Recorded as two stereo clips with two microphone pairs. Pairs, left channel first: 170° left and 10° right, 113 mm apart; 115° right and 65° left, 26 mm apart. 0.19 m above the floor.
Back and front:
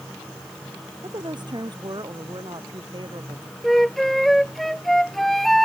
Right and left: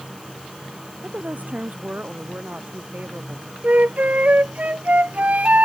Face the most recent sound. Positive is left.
turn(degrees=80)